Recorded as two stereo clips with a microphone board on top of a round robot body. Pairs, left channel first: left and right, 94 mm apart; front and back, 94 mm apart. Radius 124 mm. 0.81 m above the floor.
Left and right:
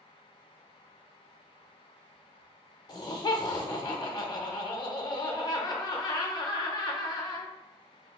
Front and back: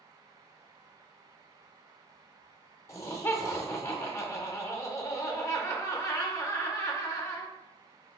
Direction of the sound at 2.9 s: 55° left.